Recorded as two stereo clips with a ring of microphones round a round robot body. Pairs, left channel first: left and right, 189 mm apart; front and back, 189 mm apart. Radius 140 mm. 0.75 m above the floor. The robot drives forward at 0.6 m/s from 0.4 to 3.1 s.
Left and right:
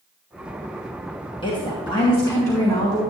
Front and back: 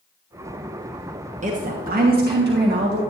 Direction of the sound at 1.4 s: 145° left.